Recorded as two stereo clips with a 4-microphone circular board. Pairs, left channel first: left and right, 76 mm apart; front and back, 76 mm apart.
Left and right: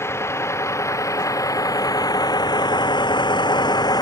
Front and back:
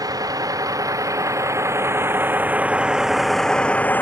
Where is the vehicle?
145° left; by 4.0 s 65° left.